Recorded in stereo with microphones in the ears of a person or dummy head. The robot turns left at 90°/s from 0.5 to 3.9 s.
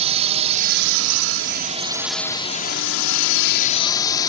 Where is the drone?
35° right; by 4.3 s 20° left.